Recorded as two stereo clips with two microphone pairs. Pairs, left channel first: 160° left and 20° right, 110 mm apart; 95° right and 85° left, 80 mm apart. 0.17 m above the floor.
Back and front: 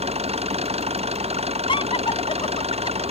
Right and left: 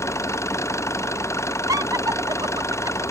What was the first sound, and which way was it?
An engine running, 45° right.